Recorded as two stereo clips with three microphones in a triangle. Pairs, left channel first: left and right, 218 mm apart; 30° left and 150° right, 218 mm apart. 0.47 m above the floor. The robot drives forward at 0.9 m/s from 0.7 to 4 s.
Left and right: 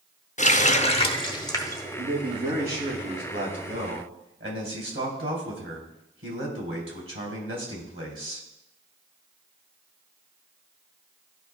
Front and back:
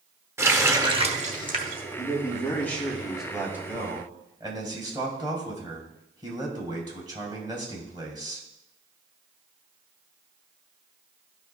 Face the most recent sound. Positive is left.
turn(degrees=-80)